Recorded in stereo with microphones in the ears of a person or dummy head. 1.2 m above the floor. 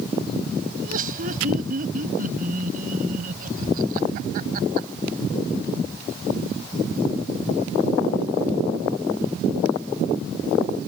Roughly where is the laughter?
Right.